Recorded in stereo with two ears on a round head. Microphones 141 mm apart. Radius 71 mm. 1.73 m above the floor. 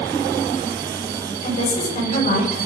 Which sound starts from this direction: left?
A woman speaking, at 1.4 s.